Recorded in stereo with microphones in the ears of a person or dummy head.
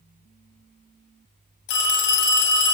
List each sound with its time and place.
1.7 s a phone ringing: 60° left (ahead or behind), 0.6 m